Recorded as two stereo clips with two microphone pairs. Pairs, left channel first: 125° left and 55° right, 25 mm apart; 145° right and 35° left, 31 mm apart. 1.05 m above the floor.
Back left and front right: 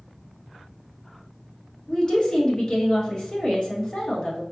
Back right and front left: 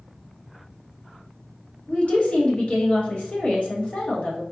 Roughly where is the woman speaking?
Behind.